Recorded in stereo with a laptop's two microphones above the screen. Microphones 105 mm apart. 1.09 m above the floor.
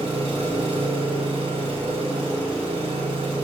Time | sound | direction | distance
0.0 | an engine running | 85° right | 4.5 m